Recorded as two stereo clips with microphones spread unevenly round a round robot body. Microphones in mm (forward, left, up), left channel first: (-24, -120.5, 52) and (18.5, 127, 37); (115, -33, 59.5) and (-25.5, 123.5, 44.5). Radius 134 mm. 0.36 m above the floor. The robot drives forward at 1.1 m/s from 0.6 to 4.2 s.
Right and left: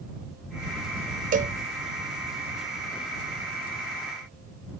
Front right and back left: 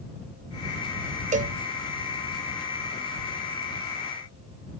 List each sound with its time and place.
1.3 s a cowbell: 110° left; by 1.6 s 135° left